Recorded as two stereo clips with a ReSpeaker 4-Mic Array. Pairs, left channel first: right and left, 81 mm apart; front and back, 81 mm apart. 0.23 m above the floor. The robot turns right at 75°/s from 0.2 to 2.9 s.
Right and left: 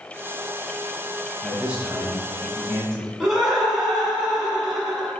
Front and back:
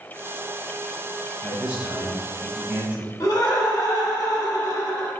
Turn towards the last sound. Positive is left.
turn(degrees=10)